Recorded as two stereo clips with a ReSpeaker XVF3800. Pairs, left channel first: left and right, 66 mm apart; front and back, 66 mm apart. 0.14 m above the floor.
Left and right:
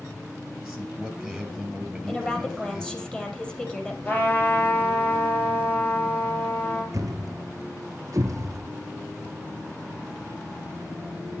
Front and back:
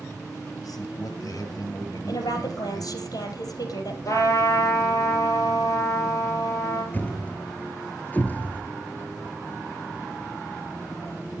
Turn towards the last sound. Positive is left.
turn(degrees=-65)